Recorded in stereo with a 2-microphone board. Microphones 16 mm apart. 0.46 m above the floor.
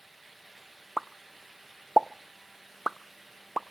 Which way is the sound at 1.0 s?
5° right (ahead or behind).